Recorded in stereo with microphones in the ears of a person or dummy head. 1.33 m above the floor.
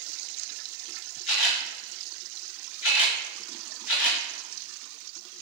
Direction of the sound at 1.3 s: 85° left.